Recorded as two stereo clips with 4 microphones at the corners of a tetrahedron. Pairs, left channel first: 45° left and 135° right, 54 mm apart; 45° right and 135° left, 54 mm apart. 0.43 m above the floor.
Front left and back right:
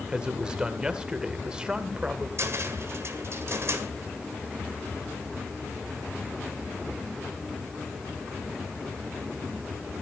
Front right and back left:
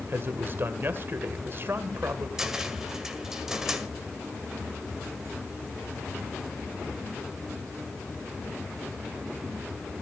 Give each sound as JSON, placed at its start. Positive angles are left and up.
{"t": 0.1, "sound": "a man speaking", "azimuth_deg": 155, "distance_m": 1.8}
{"t": 2.4, "sound": "a cupboard door", "azimuth_deg": -145, "distance_m": 1.8}